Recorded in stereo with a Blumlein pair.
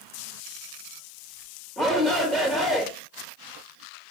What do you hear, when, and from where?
1.8 s a shout: straight ahead, 1.1 m